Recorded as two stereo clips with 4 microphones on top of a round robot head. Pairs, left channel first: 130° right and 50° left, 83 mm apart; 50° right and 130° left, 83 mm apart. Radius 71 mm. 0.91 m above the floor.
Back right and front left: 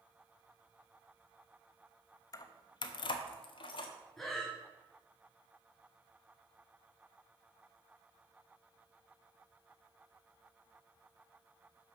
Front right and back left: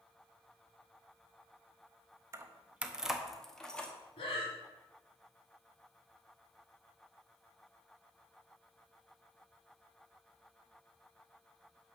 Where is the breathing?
40° right, 2.5 m.